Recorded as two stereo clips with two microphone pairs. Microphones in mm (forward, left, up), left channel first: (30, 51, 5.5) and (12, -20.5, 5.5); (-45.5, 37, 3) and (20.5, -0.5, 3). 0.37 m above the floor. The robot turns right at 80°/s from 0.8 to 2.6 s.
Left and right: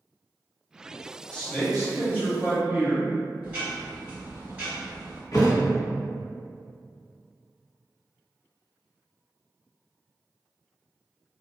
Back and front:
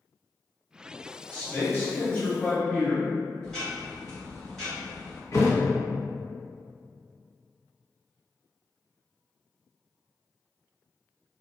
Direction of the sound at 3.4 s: 140° right.